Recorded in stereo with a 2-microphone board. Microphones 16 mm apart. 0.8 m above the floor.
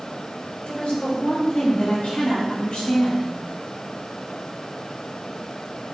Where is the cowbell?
I don't hear a cowbell.